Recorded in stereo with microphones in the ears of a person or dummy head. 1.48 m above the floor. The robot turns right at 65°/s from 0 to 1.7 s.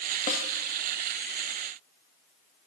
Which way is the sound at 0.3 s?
45° left (ahead or behind).